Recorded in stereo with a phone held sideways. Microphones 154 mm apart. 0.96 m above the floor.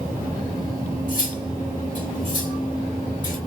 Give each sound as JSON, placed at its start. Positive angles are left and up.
{"t": 1.1, "sound": "cutlery clinking", "side_deg": 60, "distance_m": 1.8}